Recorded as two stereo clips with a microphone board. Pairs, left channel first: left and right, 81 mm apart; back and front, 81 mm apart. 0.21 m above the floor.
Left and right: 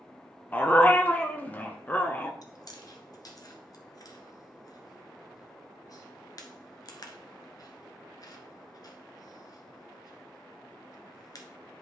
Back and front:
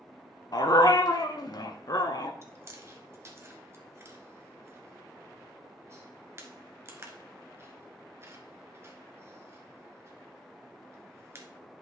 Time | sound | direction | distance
0.5 | a dog barking | 155° left | 0.9 m
2.4 | chewing | 55° left | 1.2 m